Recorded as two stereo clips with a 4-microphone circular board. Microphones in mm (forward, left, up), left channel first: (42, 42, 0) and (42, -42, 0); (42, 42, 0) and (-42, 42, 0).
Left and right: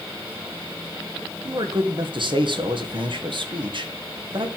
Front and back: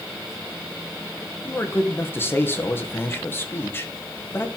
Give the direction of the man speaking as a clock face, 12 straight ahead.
2 o'clock.